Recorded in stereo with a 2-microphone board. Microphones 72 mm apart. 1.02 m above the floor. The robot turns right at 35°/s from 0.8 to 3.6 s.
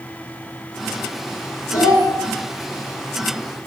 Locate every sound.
1.7 s a child speaking: 60° left (ahead or behind), 0.9 m; by 2.1 s 70° left (ahead or behind), 0.9 m